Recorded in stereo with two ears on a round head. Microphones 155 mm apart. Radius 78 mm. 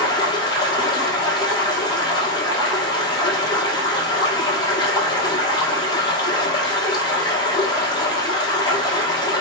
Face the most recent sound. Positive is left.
turn(degrees=25)  # may be behind; listen again after turning